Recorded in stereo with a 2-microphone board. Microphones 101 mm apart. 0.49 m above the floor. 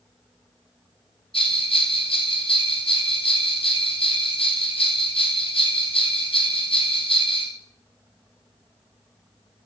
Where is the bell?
70° left (ahead or behind), 2 m.